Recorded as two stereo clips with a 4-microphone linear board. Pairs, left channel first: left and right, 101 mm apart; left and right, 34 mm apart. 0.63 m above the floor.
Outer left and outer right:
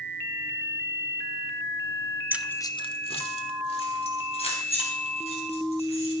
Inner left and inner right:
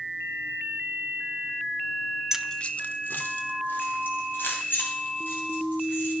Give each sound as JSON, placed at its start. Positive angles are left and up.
{"t": 2.3, "sound": "keys jangling", "side_deg": -20, "distance_m": 0.5}